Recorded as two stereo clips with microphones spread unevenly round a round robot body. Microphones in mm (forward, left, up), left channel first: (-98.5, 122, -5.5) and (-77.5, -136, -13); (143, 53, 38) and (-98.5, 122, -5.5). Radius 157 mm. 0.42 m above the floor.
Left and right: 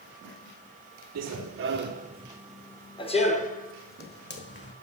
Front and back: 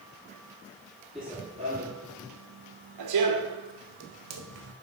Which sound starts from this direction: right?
Running footsteps, at 1.1 s.